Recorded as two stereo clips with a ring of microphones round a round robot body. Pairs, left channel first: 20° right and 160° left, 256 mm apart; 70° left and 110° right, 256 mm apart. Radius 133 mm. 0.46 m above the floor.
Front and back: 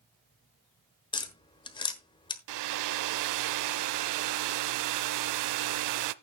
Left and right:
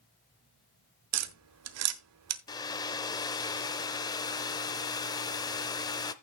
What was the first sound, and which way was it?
Tapping, 95° right.